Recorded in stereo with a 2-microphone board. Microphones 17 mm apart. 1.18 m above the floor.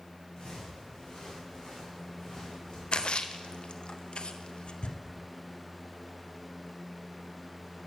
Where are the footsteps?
60° left (ahead or behind), 5.5 m; by 2.8 s 50° left (ahead or behind), 6 m.